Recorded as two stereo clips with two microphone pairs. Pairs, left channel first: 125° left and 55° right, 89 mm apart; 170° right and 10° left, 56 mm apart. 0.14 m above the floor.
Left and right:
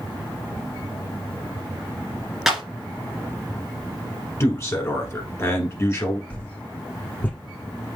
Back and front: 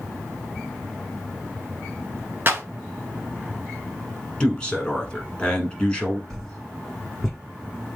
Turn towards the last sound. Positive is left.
turn(degrees=110)